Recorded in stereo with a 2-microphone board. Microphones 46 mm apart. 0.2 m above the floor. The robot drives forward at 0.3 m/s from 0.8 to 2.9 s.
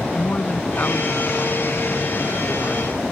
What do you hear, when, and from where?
0.1 s a woman speaking: 45° left (ahead or behind); by 3.0 s 40° left (ahead or behind)